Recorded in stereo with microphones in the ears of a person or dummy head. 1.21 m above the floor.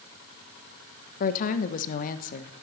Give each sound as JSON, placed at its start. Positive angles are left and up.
{"t": 1.2, "sound": "a woman speaking", "side_deg": 50, "distance_m": 0.7}